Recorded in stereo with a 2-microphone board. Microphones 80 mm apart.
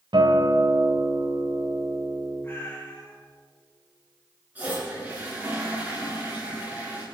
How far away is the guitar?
About 2.5 m.